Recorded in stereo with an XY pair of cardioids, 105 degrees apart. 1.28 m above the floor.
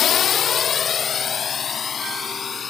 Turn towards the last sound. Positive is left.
turn(degrees=40)